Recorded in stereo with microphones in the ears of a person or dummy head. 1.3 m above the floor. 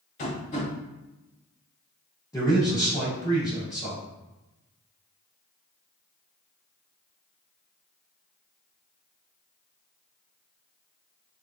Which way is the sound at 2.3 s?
10° left (ahead or behind).